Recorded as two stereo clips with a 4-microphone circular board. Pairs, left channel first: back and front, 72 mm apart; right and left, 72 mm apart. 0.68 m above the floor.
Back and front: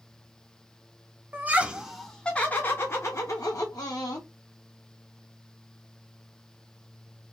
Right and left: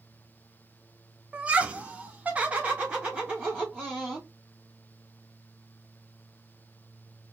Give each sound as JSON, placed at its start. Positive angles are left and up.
{"t": 1.3, "sound": "laughter", "azimuth_deg": 30, "distance_m": 0.8}